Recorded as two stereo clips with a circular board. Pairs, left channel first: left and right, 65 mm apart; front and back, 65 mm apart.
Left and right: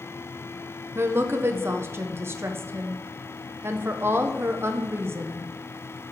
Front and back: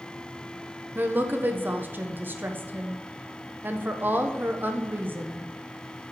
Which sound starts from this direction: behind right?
A woman speaking, at 0.9 s.